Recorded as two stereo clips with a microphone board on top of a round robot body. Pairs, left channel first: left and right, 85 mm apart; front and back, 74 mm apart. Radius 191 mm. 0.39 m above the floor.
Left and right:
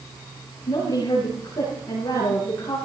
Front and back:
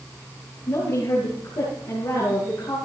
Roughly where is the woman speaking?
Ahead left.